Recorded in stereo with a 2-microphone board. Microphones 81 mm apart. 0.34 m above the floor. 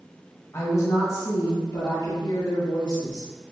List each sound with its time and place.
0.5 s a woman speaking: 35° left (ahead or behind), 1.3 m; by 3.3 s 70° left (ahead or behind), 2.5 m